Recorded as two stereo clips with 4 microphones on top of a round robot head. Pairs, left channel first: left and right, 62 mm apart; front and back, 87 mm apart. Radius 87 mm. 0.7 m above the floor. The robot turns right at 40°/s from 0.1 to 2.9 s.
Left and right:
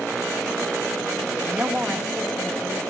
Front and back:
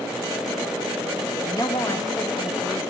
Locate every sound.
1.4 s a woman speaking: 35° right, 1.3 m; by 2.8 s 25° left, 1.3 m